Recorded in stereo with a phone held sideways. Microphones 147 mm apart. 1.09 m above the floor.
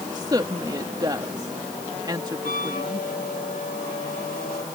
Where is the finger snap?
I don't hear a finger snap.